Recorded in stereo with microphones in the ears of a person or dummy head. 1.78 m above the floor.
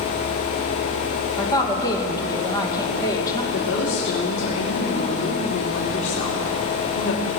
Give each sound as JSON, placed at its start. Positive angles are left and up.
{"t": 1.4, "sound": "a woman speaking", "side_deg": 20, "distance_m": 2.0}
{"t": 3.5, "sound": "a woman speaking", "side_deg": 75, "distance_m": 3.0}